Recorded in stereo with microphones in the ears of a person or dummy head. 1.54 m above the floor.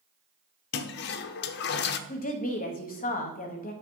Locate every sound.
0.7 s a toilet flushing: 55° left (ahead or behind), 0.5 m
2.1 s a woman speaking: 40° left (ahead or behind), 0.9 m